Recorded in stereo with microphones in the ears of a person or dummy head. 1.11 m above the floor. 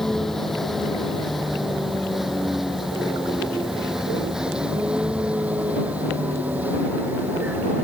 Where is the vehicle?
Centre (ahead or behind); by 7.8 s 10° right (ahead or behind).